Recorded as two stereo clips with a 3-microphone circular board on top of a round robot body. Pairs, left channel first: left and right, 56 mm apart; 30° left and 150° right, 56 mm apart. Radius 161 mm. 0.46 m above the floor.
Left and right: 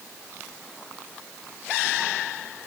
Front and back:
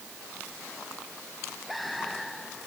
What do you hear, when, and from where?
Only background noise.